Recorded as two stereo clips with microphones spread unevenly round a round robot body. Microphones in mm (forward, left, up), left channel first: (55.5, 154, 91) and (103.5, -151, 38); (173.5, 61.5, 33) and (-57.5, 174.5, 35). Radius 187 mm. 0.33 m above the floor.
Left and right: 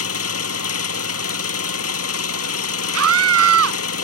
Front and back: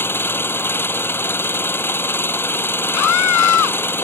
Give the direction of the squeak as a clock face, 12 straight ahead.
No squeak in this recording.